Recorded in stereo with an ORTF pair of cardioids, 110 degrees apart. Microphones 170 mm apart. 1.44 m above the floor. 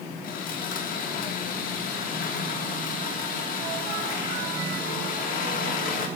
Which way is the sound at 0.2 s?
60° left.